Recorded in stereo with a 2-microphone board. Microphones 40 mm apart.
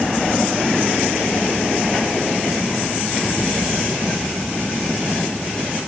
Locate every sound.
Only background noise.